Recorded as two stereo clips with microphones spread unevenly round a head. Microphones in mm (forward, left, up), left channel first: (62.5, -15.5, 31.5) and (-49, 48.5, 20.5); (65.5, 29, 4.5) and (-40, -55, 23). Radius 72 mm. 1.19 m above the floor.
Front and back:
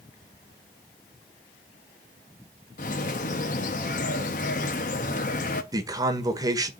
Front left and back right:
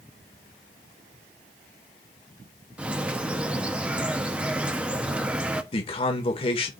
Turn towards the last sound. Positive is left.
turn(degrees=90)